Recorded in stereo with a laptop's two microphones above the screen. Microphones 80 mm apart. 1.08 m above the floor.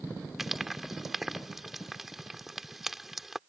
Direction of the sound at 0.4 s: 5° right (ahead or behind).